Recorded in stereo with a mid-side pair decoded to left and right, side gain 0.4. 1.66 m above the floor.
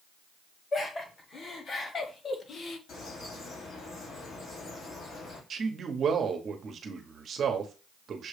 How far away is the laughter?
About 2 m.